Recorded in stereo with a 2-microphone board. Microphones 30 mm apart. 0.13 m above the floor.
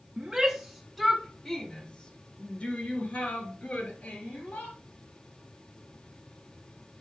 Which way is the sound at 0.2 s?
25° right (ahead or behind).